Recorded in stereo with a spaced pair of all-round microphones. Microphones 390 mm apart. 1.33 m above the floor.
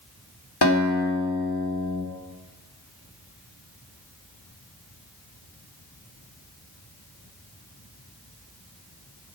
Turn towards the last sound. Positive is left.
turn(degrees=75)  # may be behind; listen again after turning